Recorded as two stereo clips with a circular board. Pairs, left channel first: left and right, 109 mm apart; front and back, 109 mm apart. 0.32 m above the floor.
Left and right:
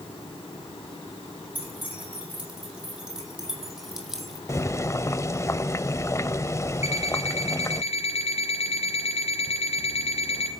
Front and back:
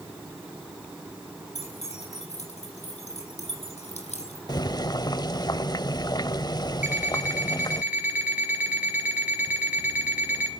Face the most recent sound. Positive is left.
turn(degrees=105)